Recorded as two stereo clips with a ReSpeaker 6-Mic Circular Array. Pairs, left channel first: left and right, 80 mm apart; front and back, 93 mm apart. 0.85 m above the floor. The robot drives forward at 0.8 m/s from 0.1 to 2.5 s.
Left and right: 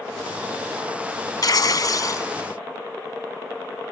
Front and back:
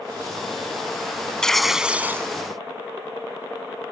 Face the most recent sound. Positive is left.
turn(degrees=130)